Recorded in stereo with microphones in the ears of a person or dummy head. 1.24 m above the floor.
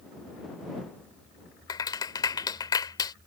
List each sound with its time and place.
1.7 s a clap: 25° left (ahead or behind)